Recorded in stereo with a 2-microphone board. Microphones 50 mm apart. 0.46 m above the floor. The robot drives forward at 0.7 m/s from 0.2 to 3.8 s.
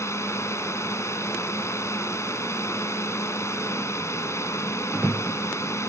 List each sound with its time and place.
0.0 s a drone: 70° left (ahead or behind)